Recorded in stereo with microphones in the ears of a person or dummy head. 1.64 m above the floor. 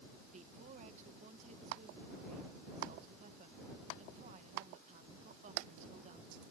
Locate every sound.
0.3 s a woman speaking: 40° right (ahead or behind)